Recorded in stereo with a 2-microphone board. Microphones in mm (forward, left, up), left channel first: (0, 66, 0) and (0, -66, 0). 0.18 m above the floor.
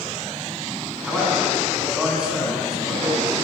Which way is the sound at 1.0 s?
5° right (ahead or behind).